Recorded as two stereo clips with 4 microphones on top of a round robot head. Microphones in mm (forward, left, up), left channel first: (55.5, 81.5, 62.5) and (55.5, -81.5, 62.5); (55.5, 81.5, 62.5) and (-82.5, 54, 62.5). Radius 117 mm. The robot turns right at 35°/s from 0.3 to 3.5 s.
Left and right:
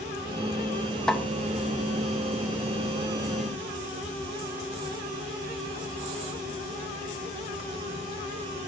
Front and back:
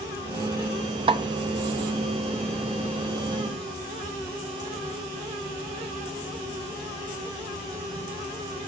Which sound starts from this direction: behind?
A snare drum, at 1.1 s.